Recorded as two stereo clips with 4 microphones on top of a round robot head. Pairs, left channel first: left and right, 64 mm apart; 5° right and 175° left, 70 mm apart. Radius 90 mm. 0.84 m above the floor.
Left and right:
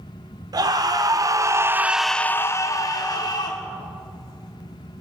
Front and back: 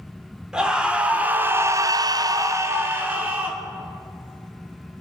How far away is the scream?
About 2.5 m.